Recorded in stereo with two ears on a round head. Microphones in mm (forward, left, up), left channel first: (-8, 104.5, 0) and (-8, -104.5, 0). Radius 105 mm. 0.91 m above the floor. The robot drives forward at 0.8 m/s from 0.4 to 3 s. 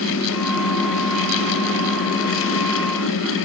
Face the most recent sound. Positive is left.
No sound to turn to.